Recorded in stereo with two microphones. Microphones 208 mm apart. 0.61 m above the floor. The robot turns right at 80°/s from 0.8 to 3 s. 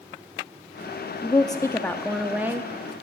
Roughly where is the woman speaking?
Left.